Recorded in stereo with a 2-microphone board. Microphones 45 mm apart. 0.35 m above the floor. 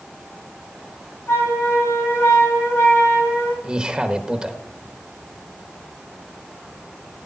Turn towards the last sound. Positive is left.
turn(degrees=-20)  # may be behind; listen again after turning